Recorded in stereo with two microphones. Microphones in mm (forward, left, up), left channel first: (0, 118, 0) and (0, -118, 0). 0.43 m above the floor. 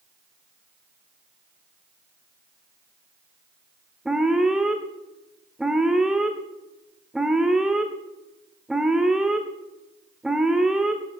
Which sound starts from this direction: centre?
An alarm, at 4.0 s.